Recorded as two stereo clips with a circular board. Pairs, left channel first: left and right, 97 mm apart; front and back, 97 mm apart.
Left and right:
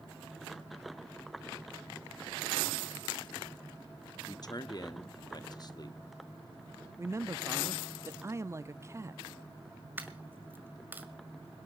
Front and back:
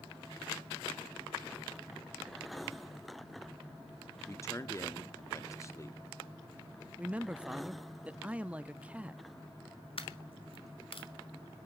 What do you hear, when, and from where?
4.3 s a man speaking: 55° left, 0.9 m
7.0 s a man speaking: 115° right, 0.5 m
10.0 s a dropped coin: 20° right, 1.8 m